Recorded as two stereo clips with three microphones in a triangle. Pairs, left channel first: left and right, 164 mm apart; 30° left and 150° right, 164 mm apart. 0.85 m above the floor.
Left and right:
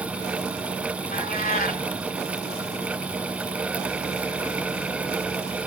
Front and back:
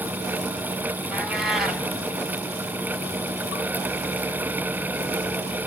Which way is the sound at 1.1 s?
120° left.